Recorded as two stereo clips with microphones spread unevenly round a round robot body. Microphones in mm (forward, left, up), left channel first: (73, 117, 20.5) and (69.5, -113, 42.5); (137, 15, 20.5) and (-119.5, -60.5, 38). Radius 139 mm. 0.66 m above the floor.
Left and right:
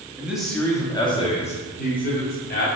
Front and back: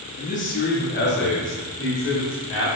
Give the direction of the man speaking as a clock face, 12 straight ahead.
12 o'clock.